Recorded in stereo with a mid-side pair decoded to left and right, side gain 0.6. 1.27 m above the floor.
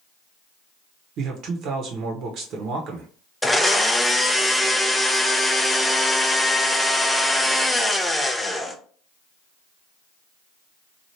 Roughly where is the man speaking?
Ahead right.